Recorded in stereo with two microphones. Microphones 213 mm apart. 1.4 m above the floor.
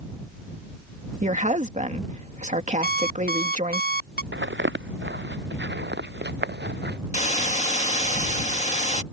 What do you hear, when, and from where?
1.2 s a woman speaking: 35° right (ahead or behind)
2.8 s an alarm clock: 45° left (ahead or behind)
4.3 s footsteps: 60° right (ahead or behind); by 7.0 s 55° right (ahead or behind)
7.1 s a hiss: 35° left (ahead or behind)